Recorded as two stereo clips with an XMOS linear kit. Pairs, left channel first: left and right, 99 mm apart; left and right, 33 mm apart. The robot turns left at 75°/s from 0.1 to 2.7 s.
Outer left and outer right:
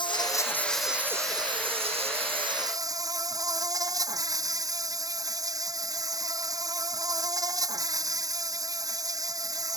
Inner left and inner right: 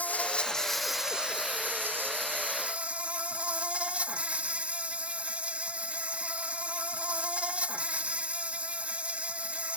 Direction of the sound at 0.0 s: 55° left.